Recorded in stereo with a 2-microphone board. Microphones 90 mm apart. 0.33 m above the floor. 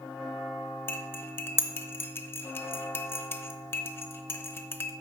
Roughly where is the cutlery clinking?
Left.